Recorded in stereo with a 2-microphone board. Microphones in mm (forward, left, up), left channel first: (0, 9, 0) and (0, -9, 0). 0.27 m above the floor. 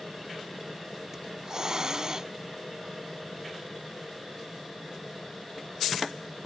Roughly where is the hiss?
Right.